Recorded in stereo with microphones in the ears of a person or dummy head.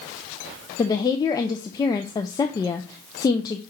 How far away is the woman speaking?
About 0.5 m.